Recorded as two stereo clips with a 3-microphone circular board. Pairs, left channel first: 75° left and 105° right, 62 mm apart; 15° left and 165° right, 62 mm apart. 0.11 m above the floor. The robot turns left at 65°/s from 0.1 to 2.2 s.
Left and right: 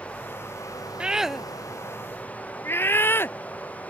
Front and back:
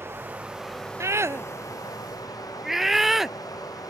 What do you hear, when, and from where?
0.0 s running water: 145° left; by 3.9 s 10° left
1.0 s a scream: 170° right; by 3.9 s 110° left